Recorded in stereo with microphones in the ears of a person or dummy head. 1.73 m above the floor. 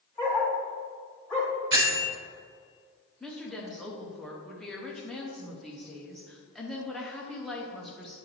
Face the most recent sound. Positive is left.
turn(degrees=0)  # may be behind; listen again after turning